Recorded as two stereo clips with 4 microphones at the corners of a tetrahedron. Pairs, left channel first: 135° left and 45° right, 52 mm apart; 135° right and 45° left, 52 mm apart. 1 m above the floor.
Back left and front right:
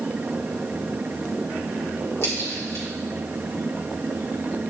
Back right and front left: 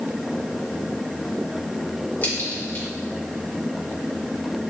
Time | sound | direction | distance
2.2 | a crack | 170° left | 3.5 m